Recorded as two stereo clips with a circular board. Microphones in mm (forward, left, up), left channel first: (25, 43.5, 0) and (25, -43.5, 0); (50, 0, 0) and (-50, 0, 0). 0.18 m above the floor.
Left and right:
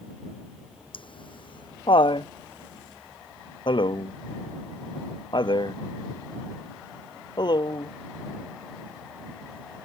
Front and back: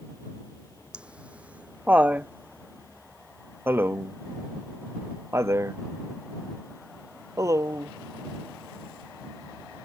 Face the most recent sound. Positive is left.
turn(degrees=125)